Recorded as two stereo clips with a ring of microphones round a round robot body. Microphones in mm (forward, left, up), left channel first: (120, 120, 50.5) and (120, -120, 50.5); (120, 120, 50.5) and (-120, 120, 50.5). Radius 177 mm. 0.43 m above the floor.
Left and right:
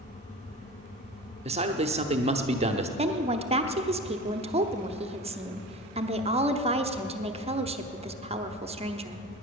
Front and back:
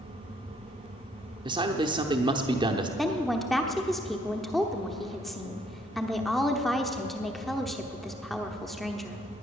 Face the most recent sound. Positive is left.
turn(degrees=-90)